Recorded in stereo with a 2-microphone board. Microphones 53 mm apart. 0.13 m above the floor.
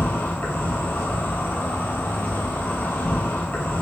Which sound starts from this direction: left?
An insect, at 0.0 s.